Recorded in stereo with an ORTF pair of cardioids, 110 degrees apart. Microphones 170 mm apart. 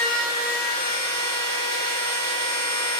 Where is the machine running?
45° right, 1.8 m.